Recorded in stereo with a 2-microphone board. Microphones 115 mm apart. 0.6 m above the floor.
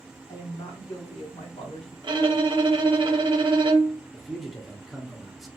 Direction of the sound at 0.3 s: 50° left (ahead or behind).